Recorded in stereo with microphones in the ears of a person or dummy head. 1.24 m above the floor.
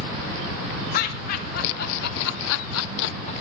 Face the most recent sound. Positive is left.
turn(degrees=30)  # may be behind; listen again after turning